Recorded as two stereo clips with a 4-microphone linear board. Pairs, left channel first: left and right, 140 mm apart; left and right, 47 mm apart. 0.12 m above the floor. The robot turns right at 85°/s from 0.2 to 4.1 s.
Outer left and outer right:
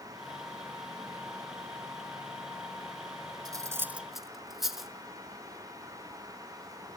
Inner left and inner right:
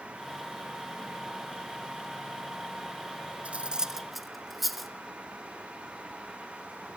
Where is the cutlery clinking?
30° right (ahead or behind), 0.9 m; by 4.9 s centre (ahead or behind), 0.9 m.